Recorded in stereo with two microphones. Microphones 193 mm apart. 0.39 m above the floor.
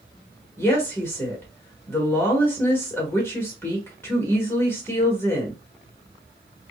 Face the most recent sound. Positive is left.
turn(degrees=10)  # may be behind; listen again after turning